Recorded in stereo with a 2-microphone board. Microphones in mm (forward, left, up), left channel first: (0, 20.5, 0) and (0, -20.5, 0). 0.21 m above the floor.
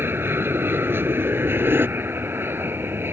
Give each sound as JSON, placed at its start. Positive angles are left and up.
{"t": 0.0, "sound": "an aircraft", "side_deg": -65}